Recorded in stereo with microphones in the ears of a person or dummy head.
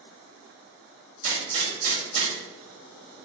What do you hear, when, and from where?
1.2 s a gunshot: 50° right (ahead or behind), 1.8 m